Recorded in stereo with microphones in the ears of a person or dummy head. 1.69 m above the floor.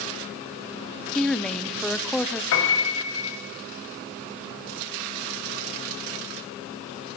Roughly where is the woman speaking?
Centre.